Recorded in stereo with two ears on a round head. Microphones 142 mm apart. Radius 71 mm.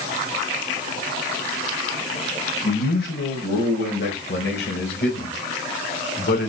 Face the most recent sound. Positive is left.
turn(degrees=70)  # may be behind; listen again after turning